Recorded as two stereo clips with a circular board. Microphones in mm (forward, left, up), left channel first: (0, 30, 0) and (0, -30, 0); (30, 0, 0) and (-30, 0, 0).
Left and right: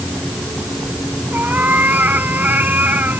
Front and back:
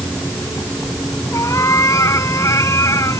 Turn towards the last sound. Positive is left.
turn(degrees=-30)